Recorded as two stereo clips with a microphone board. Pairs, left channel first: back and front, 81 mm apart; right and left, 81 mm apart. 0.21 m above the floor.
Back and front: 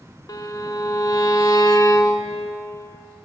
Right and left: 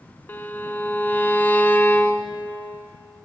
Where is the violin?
155° right, 0.5 m.